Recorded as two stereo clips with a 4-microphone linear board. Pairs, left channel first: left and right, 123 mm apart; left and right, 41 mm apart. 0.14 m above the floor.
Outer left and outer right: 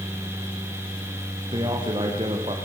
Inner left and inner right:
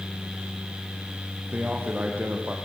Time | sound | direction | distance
1.5 | a man speaking | 40° right (ahead or behind) | 7.5 m